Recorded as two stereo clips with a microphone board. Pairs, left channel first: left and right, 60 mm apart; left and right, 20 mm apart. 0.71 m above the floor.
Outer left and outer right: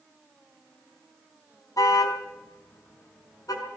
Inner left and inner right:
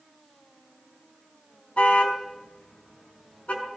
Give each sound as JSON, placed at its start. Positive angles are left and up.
{"t": 1.8, "sound": "a car horn", "side_deg": 80, "distance_m": 3.5}